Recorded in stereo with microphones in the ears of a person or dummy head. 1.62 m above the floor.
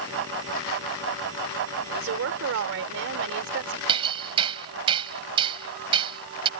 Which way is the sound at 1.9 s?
70° right (ahead or behind).